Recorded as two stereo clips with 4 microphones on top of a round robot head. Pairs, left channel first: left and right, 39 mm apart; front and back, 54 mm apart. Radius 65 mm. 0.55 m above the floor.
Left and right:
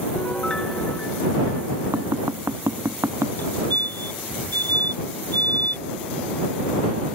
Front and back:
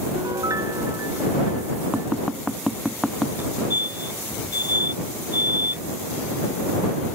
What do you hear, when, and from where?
0.1 s a piano: 165° left
1.9 s tapping: 95° right
3.4 s a fire alarm: 130° left